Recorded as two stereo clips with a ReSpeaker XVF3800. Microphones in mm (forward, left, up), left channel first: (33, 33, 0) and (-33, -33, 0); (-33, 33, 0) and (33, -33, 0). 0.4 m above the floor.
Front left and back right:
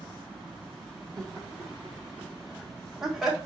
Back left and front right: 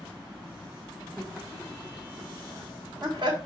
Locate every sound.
1.2 s laughter: 135° right, 1.2 m; by 3.4 s 50° right, 1.7 m